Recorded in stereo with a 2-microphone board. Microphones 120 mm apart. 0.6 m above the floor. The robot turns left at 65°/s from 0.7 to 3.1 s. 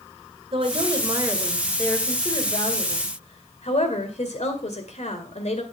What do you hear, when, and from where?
0.5 s a woman speaking: 120° right, 2 m; by 5.6 s 85° left, 2 m